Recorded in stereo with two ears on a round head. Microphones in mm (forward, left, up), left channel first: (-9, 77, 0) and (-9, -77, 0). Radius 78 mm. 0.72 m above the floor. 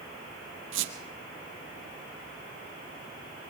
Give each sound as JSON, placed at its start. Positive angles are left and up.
{"t": 0.7, "sound": "a squeak", "side_deg": -75, "distance_m": 2.5}